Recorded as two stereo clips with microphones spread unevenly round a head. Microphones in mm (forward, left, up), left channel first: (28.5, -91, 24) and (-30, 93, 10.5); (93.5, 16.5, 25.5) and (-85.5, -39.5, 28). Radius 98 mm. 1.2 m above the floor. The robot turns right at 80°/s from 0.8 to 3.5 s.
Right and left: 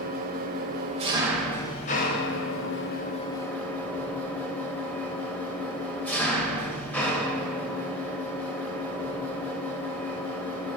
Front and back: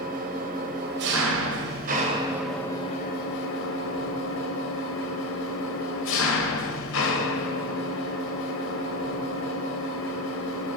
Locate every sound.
0.0 s an engine running: 150° left, 0.7 m; by 10.8 s 5° left, 0.7 m